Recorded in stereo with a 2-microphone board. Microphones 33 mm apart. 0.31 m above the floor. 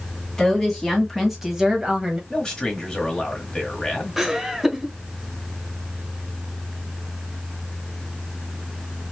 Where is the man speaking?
15° left (ahead or behind), 1.6 m.